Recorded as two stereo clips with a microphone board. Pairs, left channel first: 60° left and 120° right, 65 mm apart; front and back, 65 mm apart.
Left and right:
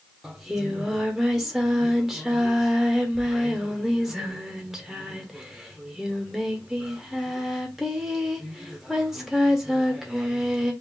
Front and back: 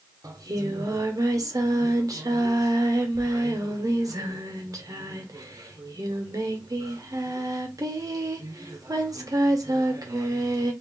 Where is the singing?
150° left, 0.9 m.